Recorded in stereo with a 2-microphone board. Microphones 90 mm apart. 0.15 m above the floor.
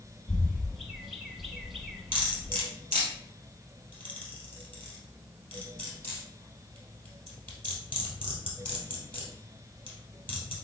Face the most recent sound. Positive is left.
turn(degrees=20)  # may be behind; listen again after turning